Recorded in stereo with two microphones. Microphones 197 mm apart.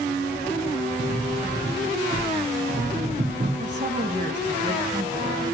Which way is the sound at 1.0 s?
35° right (ahead or behind).